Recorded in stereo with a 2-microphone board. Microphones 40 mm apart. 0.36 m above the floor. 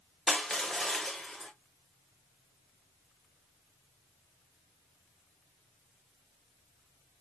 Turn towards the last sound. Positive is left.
turn(degrees=15)  # may be behind; listen again after turning